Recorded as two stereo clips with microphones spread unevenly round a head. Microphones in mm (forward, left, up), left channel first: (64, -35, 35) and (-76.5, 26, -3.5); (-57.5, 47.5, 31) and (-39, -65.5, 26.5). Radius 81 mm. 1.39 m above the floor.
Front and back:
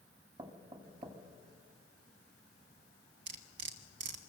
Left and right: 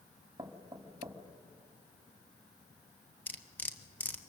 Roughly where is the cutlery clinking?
Behind.